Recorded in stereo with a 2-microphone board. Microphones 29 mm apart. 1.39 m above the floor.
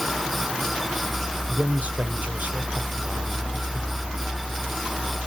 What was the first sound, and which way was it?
A man speaking, 65° right (ahead or behind).